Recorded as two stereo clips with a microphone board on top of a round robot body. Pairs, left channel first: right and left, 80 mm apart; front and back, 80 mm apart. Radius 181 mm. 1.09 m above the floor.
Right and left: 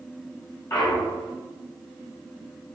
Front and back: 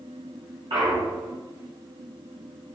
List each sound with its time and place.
0.7 s a clunk: 150° right, 0.5 m